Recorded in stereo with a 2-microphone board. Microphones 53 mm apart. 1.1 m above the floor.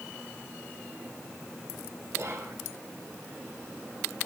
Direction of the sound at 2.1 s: 70° right (ahead or behind).